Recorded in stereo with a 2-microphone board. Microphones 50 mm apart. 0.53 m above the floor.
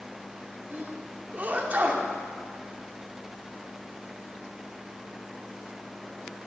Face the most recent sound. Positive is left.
turn(degrees=-35)  # may be behind; listen again after turning